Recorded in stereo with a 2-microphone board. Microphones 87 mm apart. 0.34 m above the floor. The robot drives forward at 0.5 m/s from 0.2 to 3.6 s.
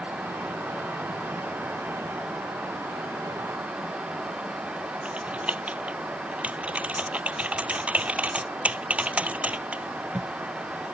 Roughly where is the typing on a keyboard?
Centre.